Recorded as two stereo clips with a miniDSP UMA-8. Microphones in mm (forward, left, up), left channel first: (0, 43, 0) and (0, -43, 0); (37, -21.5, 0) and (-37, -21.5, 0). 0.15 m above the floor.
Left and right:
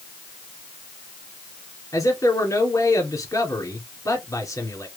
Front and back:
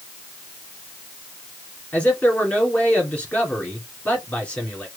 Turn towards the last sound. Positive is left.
turn(degrees=65)